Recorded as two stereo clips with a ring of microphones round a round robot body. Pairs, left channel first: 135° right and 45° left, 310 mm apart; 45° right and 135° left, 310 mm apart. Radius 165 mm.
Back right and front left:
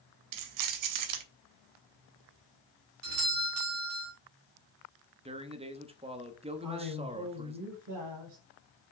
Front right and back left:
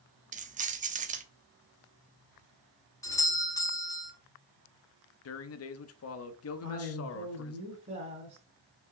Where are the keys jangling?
70° left, 0.8 m.